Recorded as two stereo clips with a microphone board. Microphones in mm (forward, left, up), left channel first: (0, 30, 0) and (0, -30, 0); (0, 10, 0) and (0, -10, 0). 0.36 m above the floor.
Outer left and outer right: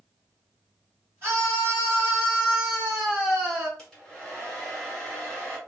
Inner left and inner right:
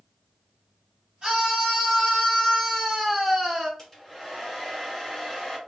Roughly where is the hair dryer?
Centre.